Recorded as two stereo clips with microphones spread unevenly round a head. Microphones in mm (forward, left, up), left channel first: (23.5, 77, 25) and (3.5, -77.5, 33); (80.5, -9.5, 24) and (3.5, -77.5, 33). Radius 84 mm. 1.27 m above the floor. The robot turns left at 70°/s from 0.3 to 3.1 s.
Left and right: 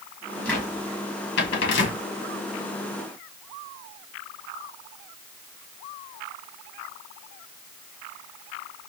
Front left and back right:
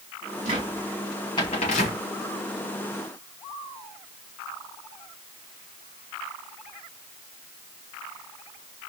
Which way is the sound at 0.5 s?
165° left.